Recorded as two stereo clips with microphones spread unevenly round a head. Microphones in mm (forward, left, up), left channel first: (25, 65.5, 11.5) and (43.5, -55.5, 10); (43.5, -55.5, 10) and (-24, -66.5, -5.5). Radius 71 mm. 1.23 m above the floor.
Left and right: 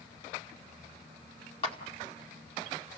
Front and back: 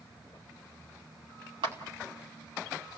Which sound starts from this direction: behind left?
A clap, at 1.6 s.